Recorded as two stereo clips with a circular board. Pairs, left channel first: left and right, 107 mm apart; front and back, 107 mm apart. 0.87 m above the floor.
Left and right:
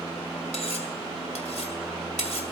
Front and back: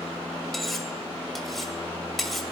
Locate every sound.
0.5 s cutlery clinking: 90° left, 2 m